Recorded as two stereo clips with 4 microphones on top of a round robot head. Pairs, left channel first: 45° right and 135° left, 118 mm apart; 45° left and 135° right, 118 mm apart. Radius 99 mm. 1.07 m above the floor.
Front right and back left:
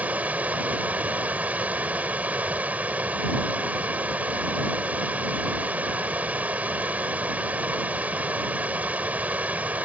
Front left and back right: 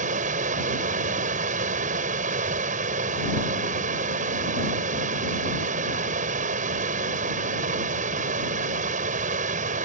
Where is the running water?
150° right.